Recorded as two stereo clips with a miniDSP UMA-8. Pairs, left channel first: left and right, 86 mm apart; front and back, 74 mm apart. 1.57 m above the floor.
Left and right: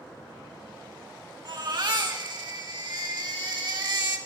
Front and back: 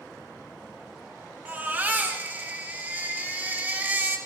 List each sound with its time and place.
1.4 s a baby crying: 115° right, 2 m